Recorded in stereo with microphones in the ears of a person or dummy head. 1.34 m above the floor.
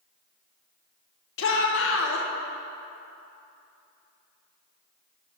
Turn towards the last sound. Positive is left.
turn(degrees=80)